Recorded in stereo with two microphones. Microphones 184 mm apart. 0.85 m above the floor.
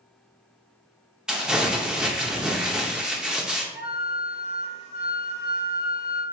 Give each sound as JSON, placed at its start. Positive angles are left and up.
{"t": 1.3, "sound": "crumpling", "side_deg": -5, "distance_m": 0.7}
{"t": 3.7, "sound": "a flute", "side_deg": -35, "distance_m": 1.3}